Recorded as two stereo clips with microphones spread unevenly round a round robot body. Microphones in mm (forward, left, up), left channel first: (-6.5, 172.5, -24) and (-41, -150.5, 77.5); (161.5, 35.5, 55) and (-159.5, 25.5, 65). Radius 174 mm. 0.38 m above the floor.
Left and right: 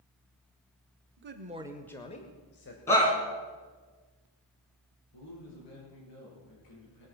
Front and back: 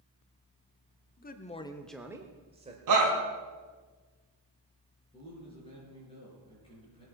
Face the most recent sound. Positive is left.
turn(degrees=75)